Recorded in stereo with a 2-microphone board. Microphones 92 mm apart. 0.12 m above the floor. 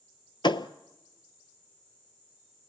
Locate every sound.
0.4 s a thud: 60° left (ahead or behind), 0.7 m